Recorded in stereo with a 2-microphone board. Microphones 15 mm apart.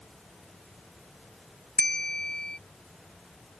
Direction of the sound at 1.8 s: 70° left (ahead or behind).